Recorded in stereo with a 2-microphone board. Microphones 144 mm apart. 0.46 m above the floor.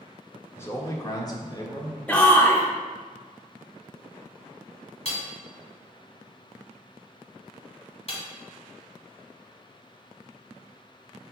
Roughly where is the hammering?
Left.